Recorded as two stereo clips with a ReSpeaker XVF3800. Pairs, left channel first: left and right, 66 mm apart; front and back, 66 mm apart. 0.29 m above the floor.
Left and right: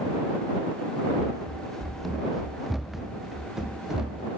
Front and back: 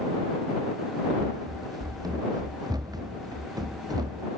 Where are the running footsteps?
170° left; by 4.3 s 170° right.